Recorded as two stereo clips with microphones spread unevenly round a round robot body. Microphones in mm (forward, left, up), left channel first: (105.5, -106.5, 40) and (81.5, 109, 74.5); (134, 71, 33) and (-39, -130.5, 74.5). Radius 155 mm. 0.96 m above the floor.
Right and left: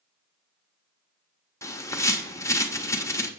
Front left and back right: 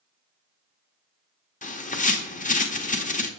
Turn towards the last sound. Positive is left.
turn(degrees=-10)